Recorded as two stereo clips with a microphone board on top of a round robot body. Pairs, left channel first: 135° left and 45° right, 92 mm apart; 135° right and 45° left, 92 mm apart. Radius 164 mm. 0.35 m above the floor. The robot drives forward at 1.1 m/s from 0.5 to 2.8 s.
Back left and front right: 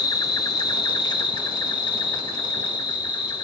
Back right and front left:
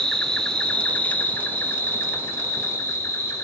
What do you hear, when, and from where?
0.0 s an insect: 145° left, 2.5 m; by 3.4 s 165° left, 4.5 m